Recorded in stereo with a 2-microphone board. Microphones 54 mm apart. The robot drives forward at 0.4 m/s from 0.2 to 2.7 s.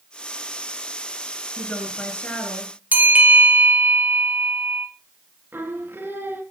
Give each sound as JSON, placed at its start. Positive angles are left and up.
{"t": 1.6, "sound": "a woman speaking", "side_deg": 20, "distance_m": 4.5}
{"t": 2.9, "sound": "a bell", "side_deg": -30, "distance_m": 2.0}
{"t": 5.5, "sound": "singing", "side_deg": -40, "distance_m": 2.5}